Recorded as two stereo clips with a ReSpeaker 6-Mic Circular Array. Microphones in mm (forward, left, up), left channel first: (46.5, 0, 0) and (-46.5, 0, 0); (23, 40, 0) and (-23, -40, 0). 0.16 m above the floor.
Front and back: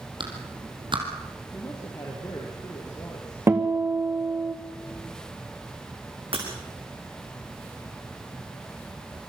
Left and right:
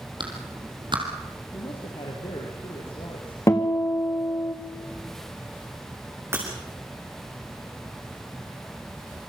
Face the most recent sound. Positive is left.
turn(degrees=175)